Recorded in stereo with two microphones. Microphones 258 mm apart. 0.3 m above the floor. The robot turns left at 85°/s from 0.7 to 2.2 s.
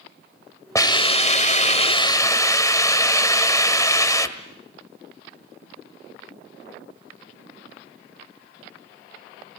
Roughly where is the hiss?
Centre.